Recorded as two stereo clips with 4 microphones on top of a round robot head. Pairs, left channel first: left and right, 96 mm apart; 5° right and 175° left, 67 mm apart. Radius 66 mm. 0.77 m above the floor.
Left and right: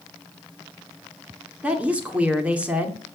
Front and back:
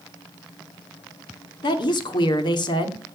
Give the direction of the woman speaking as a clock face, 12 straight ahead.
12 o'clock.